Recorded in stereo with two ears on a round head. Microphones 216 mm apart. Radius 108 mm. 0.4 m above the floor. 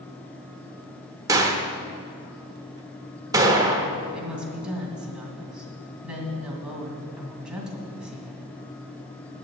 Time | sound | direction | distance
1.3 | a gunshot | 15° right (ahead or behind) | 1.1 m
4.1 | a woman speaking | 5° right (ahead or behind) | 2.5 m